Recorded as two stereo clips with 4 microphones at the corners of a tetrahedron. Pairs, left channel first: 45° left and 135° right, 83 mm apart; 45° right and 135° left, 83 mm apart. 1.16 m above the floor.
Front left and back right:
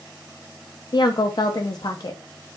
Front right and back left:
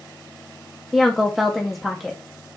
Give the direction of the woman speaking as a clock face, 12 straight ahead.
10 o'clock.